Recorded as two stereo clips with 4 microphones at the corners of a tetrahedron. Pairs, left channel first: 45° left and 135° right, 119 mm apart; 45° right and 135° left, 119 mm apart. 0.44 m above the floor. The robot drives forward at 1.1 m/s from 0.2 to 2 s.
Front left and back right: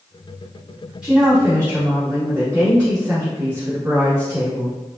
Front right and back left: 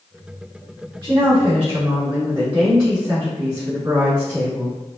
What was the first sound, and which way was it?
A woman speaking, 150° left.